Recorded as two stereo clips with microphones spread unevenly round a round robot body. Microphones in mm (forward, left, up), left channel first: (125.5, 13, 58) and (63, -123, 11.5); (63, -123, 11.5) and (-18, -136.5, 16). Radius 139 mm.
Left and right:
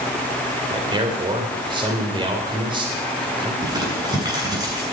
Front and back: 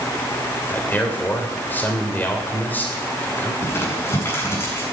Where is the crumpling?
50° right, 7.5 m.